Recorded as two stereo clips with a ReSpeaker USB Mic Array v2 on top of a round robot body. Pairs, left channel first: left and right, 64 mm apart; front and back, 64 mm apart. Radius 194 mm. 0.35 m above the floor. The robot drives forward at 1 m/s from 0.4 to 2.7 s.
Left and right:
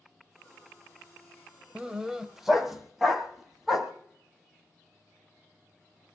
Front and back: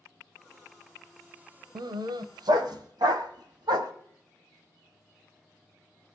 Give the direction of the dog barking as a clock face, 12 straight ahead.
5 o'clock.